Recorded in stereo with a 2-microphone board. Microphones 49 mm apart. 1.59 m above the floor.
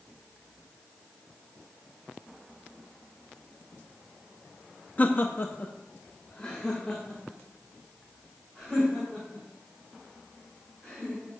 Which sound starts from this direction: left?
Laughter, at 5.0 s.